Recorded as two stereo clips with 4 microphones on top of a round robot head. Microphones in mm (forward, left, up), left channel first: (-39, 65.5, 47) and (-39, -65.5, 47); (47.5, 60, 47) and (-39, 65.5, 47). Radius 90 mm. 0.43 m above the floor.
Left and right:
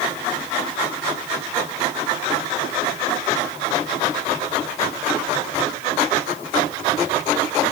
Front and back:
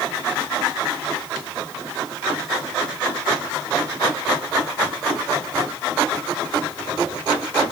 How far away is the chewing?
I don't hear chewing.